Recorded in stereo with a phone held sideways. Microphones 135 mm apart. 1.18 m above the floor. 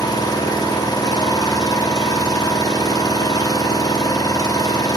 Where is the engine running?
30° left (ahead or behind), 0.7 m.